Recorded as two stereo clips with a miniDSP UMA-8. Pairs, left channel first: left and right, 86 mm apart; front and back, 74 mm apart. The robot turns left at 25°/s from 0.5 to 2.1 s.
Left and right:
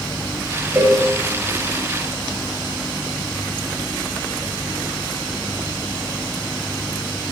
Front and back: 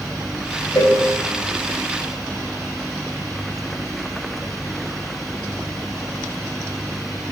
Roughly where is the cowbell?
Ahead.